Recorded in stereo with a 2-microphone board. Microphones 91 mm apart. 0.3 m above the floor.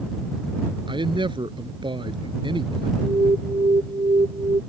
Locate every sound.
0.9 s a man speaking: 60° right (ahead or behind)
3.0 s an alarm: 80° right